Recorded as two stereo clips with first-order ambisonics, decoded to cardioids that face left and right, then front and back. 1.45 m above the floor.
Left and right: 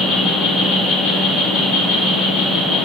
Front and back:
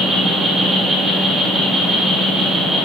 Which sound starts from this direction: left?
An insect, at 0.0 s.